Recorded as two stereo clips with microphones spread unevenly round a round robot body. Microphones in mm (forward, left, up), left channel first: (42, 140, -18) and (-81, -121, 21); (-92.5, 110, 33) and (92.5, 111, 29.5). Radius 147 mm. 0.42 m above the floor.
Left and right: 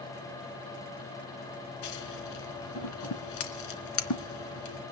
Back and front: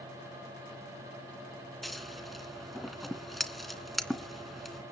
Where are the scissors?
90° left, 2.5 m.